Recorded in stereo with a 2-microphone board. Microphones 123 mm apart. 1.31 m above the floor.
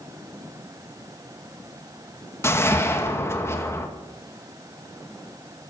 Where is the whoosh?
20° left (ahead or behind), 2.0 m.